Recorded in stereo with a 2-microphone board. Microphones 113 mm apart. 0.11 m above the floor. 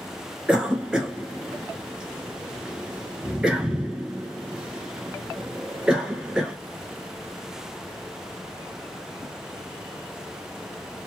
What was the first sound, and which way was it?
A cough, 5° right (ahead or behind).